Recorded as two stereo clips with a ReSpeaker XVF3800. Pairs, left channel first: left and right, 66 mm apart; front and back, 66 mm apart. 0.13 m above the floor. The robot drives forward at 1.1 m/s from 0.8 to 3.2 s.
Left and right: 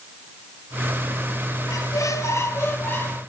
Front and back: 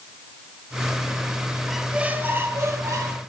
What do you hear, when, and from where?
1.7 s a squeak: 90° left, 1.1 m; by 3.2 s 150° left, 2.0 m